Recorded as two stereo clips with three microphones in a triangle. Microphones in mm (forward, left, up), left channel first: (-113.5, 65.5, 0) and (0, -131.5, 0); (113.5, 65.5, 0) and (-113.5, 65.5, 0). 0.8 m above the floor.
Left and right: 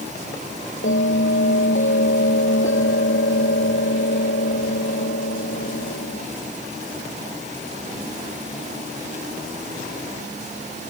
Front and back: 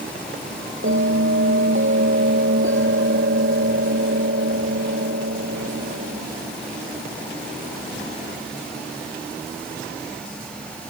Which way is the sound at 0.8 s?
150° left.